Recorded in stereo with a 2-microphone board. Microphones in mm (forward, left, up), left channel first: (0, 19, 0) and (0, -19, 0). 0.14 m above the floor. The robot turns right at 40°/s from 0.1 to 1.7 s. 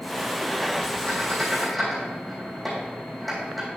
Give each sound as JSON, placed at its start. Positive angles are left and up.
{"t": 1.1, "sound": "a squeak", "side_deg": 30, "distance_m": 3.0}